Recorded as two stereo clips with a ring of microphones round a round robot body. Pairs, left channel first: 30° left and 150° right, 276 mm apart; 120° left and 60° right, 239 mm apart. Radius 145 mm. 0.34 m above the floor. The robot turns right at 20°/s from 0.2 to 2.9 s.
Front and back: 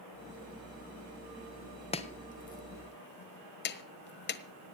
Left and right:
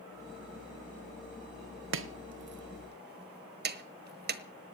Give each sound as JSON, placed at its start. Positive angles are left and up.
{"t": 1.9, "sound": "chopping", "azimuth_deg": -35, "distance_m": 1.3}